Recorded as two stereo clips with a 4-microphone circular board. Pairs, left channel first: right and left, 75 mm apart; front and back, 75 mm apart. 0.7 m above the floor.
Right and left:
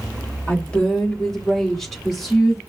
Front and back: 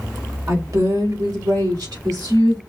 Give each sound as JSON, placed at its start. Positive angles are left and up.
{"t": 0.5, "sound": "a woman speaking", "azimuth_deg": -155, "distance_m": 1.3}